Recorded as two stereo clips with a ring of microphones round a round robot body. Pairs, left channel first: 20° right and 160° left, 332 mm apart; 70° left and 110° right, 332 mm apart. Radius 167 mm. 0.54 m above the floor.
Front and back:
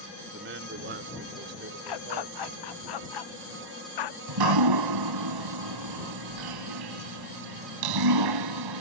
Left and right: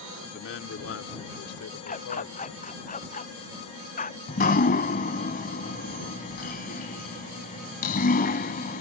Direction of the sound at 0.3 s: 115° left.